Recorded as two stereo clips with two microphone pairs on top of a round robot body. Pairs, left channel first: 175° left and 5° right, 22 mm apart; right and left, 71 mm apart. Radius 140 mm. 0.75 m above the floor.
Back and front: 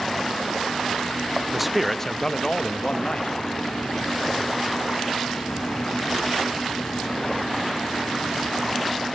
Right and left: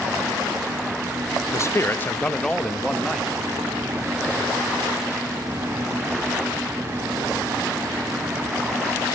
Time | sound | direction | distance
1.5 | a man speaking | 90° right | 0.9 m